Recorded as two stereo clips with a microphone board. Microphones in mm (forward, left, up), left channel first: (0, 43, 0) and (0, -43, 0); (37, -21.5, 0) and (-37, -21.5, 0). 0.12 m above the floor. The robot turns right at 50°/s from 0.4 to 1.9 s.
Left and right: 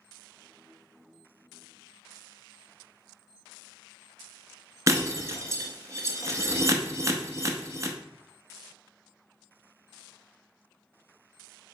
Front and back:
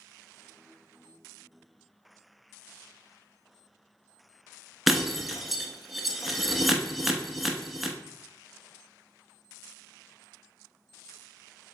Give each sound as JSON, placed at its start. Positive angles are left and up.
{"t": 4.9, "sound": "breaking glass", "azimuth_deg": -95, "distance_m": 0.6}